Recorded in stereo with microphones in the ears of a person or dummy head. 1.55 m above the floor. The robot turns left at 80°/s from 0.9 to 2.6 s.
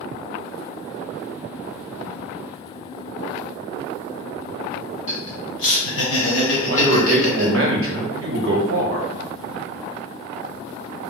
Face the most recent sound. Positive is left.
turn(degrees=-70)  # may be behind; listen again after turning